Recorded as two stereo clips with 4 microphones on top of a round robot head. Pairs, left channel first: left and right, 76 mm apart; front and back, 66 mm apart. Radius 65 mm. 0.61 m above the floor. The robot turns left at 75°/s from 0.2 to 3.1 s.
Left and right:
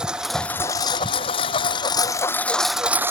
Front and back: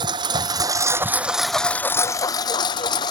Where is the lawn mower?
170° right; by 3.1 s 30° right.